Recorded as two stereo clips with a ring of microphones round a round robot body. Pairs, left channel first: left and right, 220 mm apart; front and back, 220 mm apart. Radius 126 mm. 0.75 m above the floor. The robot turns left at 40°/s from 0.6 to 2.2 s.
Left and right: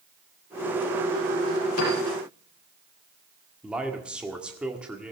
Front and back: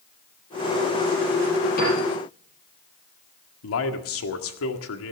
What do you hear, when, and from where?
1.8 s a piano: 55° left, 6.5 m; by 2.0 s 50° left, 6.5 m
3.6 s a man speaking: 5° right, 1.8 m